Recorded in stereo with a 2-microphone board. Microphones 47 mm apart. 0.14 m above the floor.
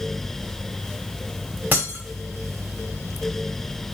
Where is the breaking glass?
40° right (ahead or behind), 1.6 m.